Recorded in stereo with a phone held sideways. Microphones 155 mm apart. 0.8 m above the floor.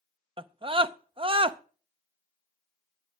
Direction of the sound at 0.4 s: 35° right (ahead or behind).